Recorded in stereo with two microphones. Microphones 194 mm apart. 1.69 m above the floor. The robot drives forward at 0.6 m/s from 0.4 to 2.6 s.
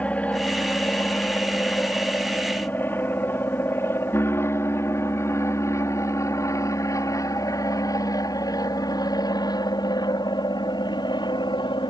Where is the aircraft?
5° left (ahead or behind); by 11.9 s 25° left (ahead or behind).